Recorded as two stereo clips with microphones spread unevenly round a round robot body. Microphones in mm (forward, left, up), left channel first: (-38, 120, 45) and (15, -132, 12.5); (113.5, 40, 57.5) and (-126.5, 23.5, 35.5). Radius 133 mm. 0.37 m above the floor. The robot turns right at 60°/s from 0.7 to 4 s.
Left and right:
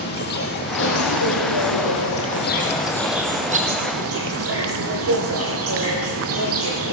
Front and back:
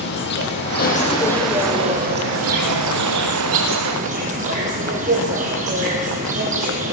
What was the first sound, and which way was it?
An insect, 50° left.